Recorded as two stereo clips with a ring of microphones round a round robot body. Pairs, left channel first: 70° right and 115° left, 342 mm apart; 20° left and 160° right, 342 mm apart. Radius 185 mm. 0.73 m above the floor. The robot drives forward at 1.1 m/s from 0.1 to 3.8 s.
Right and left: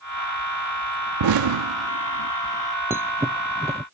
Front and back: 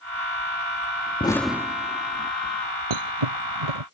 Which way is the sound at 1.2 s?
95° left.